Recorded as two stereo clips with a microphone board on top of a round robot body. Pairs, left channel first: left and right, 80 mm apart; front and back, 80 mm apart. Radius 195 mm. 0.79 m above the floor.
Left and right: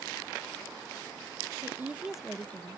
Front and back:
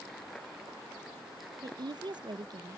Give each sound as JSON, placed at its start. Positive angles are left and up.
{"t": 1.6, "sound": "a woman speaking", "azimuth_deg": -145}